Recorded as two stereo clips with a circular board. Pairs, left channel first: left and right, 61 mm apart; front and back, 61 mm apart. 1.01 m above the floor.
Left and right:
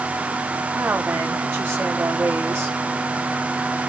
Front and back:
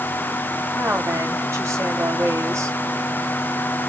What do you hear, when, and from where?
0.8 s a woman speaking: 140° right, 6.5 m